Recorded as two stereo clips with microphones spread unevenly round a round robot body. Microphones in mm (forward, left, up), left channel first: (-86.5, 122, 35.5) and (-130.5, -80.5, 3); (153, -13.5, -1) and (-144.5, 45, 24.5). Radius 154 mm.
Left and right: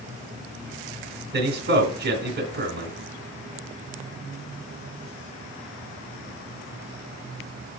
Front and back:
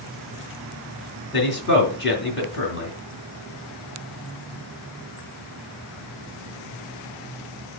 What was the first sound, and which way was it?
A man speaking, 60° right.